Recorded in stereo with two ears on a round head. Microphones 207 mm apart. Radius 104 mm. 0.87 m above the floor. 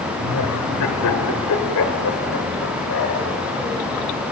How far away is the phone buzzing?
I don't hear a phone buzzing.